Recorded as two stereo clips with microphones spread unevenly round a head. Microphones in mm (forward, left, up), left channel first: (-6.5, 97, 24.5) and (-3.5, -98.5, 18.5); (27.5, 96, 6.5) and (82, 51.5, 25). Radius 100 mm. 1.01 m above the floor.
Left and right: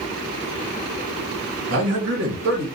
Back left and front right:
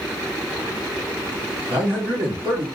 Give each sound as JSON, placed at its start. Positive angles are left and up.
{"t": 1.7, "sound": "a man speaking", "azimuth_deg": -90, "distance_m": 1.2}